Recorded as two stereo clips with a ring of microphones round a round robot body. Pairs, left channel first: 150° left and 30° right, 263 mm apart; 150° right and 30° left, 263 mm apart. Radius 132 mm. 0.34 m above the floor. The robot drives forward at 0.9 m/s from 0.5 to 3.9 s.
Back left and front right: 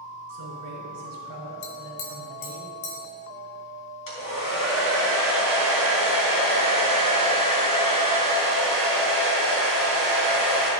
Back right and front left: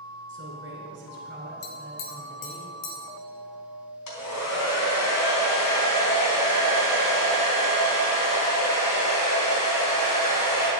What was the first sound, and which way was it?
A man speaking, 20° right.